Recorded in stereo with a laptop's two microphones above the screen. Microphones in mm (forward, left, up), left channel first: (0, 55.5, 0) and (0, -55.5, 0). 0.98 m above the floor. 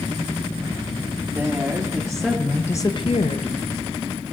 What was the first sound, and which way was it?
A woman speaking, 15° right (ahead or behind).